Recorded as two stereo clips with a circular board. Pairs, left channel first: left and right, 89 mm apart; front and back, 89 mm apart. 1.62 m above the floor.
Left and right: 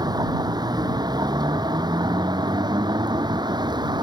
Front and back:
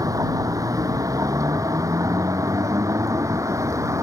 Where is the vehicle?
130° right; by 4.0 s 125° right.